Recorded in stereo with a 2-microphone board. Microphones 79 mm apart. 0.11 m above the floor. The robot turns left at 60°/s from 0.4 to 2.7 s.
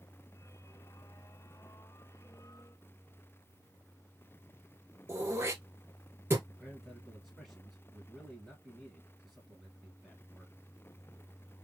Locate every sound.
5.1 s throat clearing: 30° right (ahead or behind), 1.4 m
6.5 s a man speaking: centre (ahead or behind), 2 m